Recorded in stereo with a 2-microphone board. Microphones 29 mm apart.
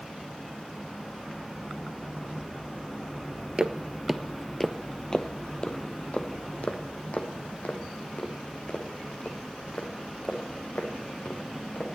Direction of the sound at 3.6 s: 30° right (ahead or behind).